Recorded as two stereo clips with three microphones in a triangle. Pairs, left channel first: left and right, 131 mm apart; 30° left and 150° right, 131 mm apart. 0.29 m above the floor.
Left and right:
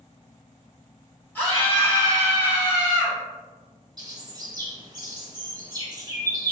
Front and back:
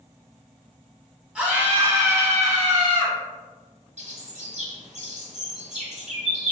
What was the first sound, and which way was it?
A scream, 140° left.